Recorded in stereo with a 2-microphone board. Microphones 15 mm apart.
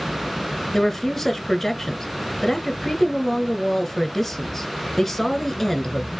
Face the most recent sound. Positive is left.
turn(degrees=15)  # may be behind; listen again after turning